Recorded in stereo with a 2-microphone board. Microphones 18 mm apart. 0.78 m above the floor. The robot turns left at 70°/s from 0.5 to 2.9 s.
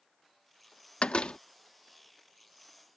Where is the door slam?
75° left (ahead or behind); by 1.4 s 65° left (ahead or behind).